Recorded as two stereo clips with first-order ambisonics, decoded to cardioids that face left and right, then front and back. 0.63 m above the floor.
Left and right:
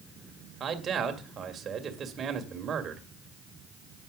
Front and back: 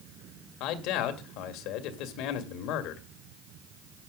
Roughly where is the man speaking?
Ahead right.